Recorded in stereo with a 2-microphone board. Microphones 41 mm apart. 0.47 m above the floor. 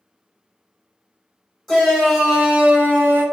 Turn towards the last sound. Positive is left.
turn(degrees=-45)  # may be behind; listen again after turning